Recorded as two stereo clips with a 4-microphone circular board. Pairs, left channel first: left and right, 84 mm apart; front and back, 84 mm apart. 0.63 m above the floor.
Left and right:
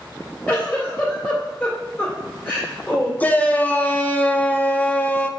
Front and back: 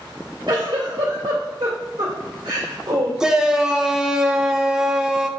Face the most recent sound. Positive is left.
turn(degrees=110)